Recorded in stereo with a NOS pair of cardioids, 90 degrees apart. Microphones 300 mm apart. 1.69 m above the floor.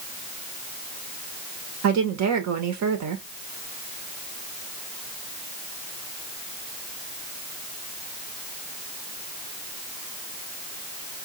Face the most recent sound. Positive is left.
turn(degrees=-70)